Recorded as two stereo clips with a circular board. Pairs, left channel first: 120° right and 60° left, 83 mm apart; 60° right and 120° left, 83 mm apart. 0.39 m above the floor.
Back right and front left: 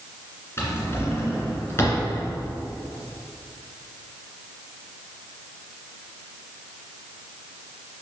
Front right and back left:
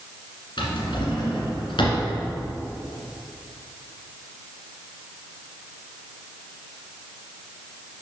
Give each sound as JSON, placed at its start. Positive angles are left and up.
{"t": 0.6, "sound": "a drawer", "azimuth_deg": -60, "distance_m": 1.9}